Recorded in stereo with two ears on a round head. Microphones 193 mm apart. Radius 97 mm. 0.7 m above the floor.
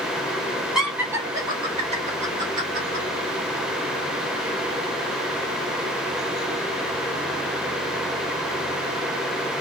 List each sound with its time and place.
0.8 s laughter: centre (ahead or behind), 1.3 m; by 3.0 s 50° right (ahead or behind), 1.8 m